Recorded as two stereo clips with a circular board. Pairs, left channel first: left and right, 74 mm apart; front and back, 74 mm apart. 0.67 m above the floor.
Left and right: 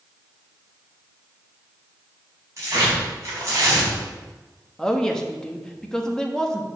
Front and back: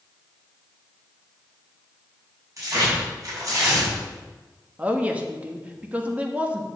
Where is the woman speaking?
155° left, 0.9 m.